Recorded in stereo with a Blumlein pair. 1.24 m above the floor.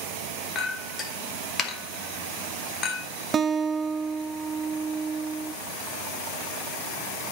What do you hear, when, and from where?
0.6 s a clink: 25° left, 1.4 m
3.3 s a guitar: 20° right, 0.6 m